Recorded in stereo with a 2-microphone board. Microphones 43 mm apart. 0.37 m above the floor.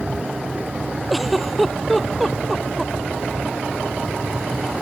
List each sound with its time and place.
1.1 s a giggle: centre (ahead or behind)